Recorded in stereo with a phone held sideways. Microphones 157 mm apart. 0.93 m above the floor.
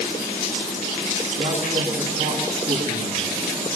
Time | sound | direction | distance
1.4 | a man speaking | 85° right | 8.5 m